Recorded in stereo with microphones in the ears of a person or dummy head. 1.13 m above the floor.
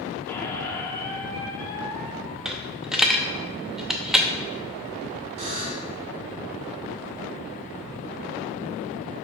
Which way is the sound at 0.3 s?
15° left (ahead or behind).